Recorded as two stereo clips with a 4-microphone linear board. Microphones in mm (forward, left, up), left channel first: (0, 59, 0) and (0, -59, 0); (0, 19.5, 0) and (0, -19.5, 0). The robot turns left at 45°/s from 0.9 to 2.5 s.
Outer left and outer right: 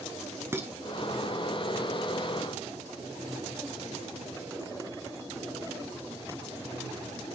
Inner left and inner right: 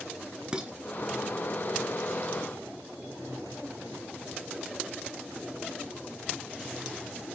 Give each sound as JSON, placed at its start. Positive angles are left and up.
{"t": 0.5, "sound": "dishes clattering", "side_deg": -20, "distance_m": 0.9}